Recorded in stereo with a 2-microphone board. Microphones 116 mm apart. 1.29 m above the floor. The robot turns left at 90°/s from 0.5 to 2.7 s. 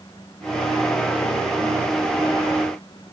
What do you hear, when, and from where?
Only background noise.